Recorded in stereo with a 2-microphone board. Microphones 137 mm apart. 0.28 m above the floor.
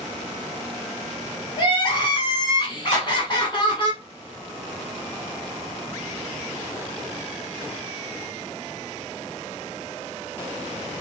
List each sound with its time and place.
1.6 s crying: 35° left (ahead or behind), 1.0 m
2.9 s a clap: 60° left (ahead or behind), 2.0 m